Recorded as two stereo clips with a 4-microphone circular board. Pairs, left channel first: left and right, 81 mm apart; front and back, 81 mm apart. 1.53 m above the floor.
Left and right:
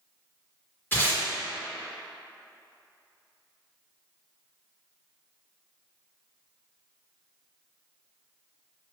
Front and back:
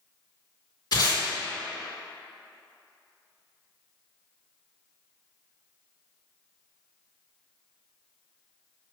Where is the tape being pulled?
30° left, 1.6 m.